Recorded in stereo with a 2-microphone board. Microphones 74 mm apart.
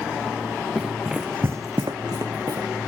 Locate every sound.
0.8 s running footsteps: 5° left (ahead or behind), 1.0 m; by 2.7 s 50° right (ahead or behind), 1.1 m